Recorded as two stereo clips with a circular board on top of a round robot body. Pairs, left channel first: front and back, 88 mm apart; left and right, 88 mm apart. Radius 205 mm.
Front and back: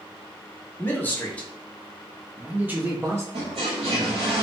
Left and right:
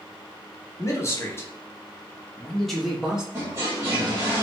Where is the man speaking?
55° left, 1.3 m; by 3.2 s 165° right, 1.2 m.